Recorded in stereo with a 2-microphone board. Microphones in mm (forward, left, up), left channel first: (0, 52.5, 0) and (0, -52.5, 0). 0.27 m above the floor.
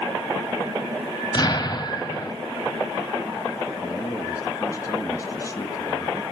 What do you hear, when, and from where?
1.3 s an explosion: 40° left (ahead or behind), 1.8 m
3.8 s a man speaking: 35° left (ahead or behind), 2 m